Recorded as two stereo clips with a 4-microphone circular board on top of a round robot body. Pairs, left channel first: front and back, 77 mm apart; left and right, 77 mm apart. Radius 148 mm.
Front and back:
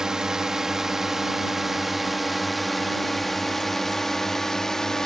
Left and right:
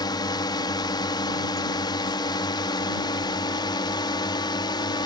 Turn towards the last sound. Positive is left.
turn(degrees=85)